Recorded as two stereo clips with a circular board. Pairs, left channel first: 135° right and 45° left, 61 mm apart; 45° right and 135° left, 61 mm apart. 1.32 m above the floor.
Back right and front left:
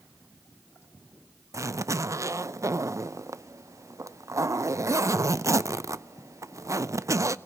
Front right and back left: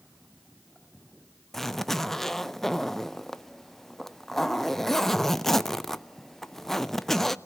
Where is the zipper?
40° left, 0.5 m.